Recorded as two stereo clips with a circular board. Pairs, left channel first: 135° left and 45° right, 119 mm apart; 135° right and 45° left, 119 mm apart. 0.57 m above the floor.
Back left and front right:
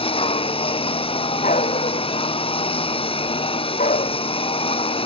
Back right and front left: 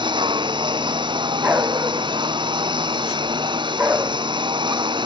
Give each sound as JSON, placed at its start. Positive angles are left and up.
{"t": 0.0, "sound": "a lawn mower", "azimuth_deg": 95}
{"t": 1.4, "sound": "a dog barking", "azimuth_deg": 120}